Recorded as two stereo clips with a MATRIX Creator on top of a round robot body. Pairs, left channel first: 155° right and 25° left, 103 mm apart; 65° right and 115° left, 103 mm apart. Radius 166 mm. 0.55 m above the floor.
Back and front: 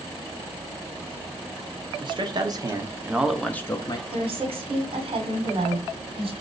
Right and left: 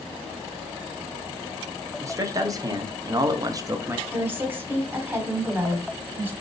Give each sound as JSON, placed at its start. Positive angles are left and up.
{"t": 2.0, "sound": "a man speaking", "azimuth_deg": 55, "distance_m": 1.4}
{"t": 4.1, "sound": "a woman speaking", "azimuth_deg": 45, "distance_m": 2.0}